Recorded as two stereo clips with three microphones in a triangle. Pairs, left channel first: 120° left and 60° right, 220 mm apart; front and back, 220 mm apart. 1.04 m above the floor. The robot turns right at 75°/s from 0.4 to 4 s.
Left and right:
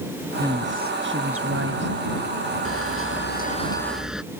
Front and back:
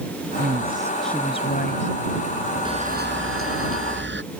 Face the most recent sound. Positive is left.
turn(degrees=-150)